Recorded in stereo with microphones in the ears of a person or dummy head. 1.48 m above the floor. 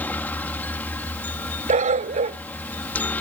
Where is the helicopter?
5° left (ahead or behind).